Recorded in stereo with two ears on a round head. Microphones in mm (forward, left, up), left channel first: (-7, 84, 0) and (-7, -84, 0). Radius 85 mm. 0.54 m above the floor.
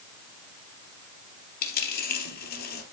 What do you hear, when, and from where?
1.6 s a dropped coin: 50° left (ahead or behind), 3 m